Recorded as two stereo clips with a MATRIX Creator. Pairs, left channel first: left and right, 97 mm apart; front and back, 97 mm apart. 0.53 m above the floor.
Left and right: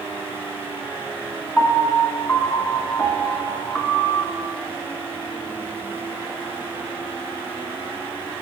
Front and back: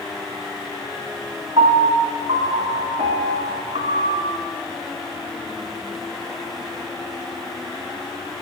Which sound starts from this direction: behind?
A piano, at 1.6 s.